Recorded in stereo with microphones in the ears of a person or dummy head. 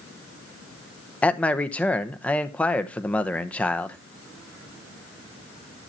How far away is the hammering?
I don't hear hammering.